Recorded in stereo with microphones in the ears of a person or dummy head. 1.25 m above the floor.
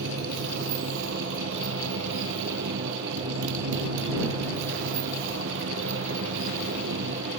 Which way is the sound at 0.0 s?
70° right (ahead or behind).